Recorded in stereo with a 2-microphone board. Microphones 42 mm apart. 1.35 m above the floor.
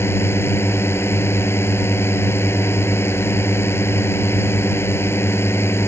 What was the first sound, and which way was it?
A drone, 85° left.